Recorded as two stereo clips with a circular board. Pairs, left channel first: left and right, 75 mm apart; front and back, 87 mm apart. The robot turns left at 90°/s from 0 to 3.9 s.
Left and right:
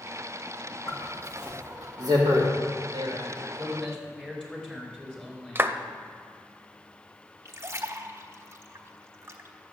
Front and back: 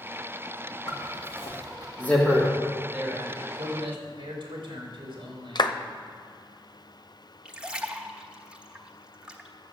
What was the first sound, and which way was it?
A zipper, 40° left.